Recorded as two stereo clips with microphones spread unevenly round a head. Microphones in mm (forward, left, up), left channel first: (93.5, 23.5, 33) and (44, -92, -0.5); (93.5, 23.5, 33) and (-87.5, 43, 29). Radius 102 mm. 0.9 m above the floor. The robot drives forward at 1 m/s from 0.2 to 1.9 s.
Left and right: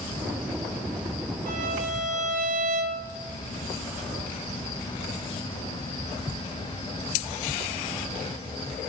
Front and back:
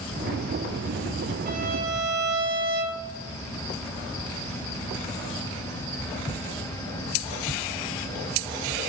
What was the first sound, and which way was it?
A violin, 135° right.